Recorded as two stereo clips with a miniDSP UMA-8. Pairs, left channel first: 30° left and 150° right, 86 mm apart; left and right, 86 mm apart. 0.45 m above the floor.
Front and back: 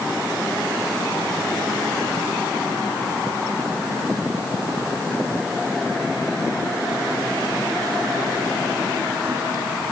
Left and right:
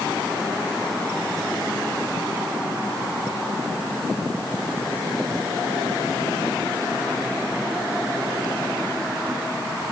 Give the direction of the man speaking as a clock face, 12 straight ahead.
I don't hear a man speaking.